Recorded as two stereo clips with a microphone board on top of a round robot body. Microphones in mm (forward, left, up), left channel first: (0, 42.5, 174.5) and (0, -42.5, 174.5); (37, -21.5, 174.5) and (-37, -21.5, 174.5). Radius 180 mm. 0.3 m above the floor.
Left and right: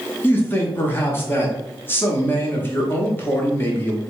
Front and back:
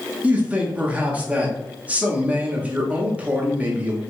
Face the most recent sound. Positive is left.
turn(degrees=130)